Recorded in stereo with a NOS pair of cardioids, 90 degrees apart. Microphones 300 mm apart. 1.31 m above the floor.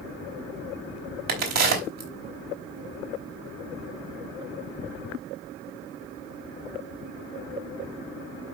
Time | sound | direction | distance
1.3 | a crack | 60° right | 4 m